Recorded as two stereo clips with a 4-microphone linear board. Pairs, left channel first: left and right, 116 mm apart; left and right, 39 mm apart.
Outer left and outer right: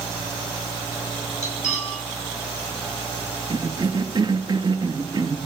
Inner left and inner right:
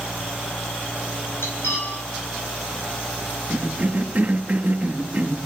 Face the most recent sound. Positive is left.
turn(degrees=-40)  # may be behind; listen again after turning